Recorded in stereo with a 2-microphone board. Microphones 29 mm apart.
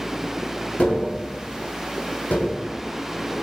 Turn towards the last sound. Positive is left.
turn(degrees=75)  # may be behind; listen again after turning